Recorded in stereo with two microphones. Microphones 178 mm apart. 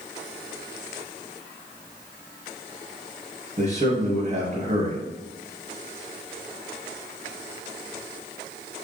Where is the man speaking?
40° right (ahead or behind), 2.5 m.